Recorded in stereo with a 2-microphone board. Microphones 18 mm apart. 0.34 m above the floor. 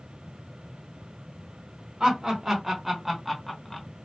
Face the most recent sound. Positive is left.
turn(degrees=15)  # may be behind; listen again after turning